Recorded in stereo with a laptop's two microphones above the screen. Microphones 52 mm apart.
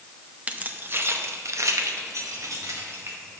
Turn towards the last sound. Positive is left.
turn(degrees=-75)  # may be behind; listen again after turning